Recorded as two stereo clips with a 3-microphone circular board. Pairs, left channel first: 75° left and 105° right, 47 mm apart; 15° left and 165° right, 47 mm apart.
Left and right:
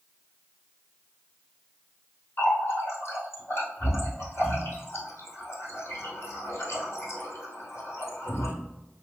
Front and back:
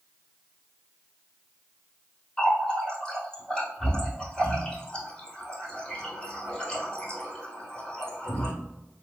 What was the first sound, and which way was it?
A running tap, 85° left.